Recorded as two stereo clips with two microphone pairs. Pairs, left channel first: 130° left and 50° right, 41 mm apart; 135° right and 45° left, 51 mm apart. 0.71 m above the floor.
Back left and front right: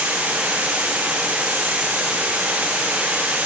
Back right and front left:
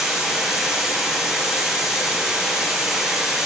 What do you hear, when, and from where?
0.0 s running water: 40° right, 6 m